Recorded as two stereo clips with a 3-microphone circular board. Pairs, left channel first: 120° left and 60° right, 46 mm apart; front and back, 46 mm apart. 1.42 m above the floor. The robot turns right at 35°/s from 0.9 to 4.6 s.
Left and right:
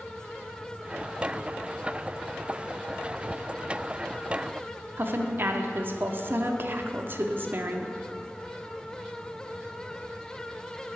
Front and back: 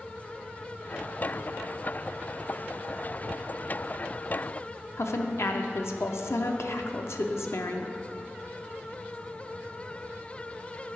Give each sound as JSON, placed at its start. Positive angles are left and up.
{"t": 5.0, "sound": "a woman speaking", "azimuth_deg": -20, "distance_m": 0.6}